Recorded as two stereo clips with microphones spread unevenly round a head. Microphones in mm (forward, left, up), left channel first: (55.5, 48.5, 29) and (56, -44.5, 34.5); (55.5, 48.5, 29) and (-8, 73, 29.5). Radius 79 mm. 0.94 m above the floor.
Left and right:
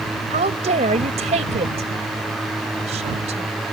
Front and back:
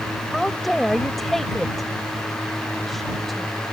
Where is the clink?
No clink in this recording.